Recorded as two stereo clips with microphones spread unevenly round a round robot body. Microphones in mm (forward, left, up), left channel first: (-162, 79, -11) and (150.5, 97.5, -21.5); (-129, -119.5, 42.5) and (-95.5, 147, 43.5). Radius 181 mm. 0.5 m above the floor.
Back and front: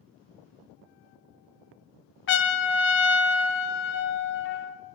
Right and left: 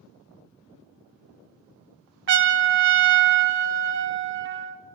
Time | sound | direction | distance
2.3 | a trumpet | 130° left | 0.6 m